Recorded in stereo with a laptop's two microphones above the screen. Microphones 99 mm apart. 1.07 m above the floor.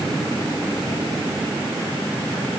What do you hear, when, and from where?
Only background noise.